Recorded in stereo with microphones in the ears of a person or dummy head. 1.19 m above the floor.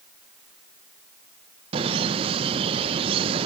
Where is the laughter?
35° right (ahead or behind), 1.0 m.